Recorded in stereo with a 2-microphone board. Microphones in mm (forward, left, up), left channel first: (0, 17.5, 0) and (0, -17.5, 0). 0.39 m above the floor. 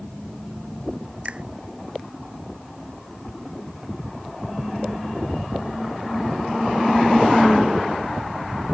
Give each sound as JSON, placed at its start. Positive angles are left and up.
{"t": 1.2, "sound": "a finger snap", "side_deg": -30}